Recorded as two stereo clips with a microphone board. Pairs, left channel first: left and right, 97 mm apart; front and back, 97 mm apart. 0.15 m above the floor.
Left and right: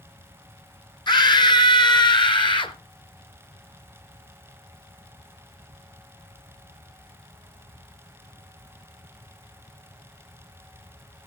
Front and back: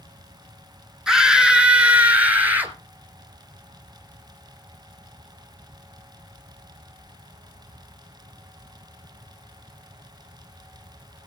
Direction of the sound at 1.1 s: 100° left.